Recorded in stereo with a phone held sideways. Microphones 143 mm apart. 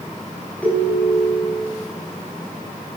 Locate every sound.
0.6 s a ringtone: 10° left (ahead or behind), 6 m